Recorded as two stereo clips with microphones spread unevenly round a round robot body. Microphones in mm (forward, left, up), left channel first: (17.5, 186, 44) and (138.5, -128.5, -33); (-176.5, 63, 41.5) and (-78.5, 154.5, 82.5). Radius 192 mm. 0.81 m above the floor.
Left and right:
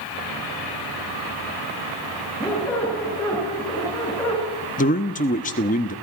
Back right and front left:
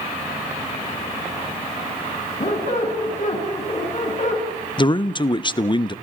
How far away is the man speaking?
About 1.0 m.